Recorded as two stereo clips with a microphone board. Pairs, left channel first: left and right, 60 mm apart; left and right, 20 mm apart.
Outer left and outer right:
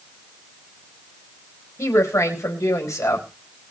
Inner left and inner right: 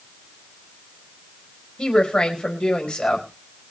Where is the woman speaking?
55° left (ahead or behind), 4.5 m.